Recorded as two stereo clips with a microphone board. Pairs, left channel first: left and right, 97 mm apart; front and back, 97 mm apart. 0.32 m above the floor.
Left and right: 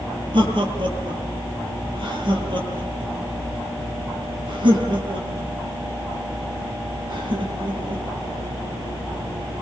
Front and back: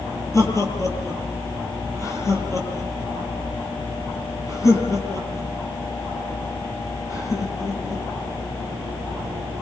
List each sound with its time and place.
0.3 s laughter: 55° right, 8.5 m